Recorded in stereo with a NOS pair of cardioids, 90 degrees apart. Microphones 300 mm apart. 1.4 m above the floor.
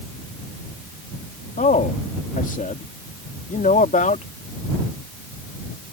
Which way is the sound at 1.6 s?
25° left.